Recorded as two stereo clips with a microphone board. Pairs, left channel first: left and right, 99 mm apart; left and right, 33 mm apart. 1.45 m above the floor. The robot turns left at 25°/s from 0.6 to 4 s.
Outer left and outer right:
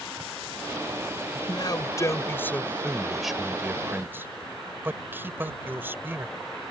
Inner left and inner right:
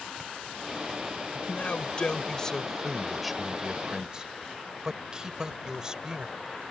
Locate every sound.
1.4 s a man speaking: 45° left (ahead or behind); by 6.3 s 20° right (ahead or behind)